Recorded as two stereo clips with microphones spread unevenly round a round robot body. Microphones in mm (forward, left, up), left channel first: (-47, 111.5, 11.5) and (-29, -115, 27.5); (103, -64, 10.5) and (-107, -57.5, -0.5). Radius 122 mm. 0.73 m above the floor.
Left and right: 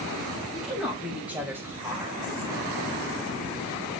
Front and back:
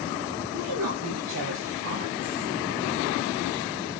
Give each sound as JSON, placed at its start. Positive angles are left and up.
{"t": 0.5, "sound": "a woman speaking", "azimuth_deg": -175, "distance_m": 3.5}